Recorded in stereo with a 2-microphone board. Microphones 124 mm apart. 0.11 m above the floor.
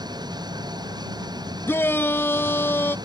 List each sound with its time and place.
0.0 s an engine running: 35° right (ahead or behind)
1.7 s a shout: 15° left (ahead or behind)